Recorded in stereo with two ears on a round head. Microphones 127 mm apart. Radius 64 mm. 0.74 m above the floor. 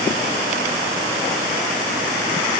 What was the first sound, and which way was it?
Only background noise.